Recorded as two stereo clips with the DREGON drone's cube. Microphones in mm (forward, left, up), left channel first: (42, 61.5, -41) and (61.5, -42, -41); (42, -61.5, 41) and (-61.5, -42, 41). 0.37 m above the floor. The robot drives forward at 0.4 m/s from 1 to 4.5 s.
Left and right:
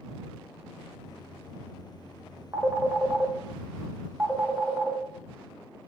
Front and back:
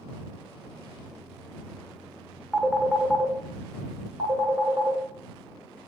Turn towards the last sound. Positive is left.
turn(degrees=-160)